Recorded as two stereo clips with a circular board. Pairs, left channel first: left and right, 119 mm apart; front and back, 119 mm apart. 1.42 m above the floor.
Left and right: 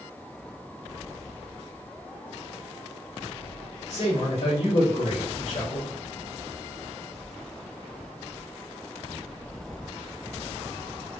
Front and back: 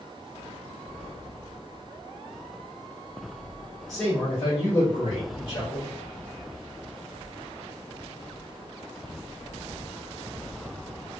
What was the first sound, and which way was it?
A man speaking, 90° left.